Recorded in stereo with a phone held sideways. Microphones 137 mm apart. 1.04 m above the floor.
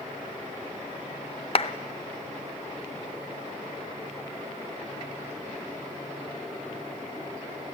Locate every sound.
1.6 s a clap: 45° left (ahead or behind), 0.7 m